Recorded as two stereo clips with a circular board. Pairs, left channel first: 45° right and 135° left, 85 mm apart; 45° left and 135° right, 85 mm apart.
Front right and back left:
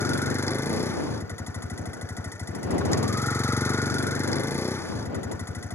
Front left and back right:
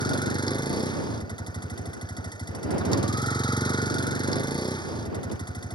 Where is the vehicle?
15° left.